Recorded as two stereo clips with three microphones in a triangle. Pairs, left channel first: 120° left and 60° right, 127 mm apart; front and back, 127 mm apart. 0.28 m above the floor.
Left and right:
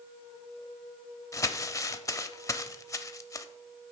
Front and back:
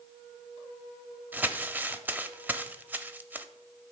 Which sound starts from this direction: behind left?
Crumpling, at 1.3 s.